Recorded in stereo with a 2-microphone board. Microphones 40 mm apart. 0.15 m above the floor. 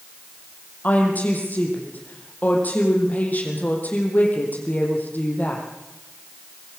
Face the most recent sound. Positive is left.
turn(degrees=45)  # may be behind; listen again after turning